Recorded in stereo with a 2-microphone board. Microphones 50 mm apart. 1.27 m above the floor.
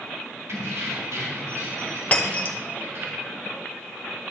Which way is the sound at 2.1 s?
30° left (ahead or behind).